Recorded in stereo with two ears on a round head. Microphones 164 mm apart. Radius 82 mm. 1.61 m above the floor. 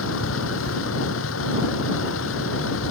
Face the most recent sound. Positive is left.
turn(degrees=85)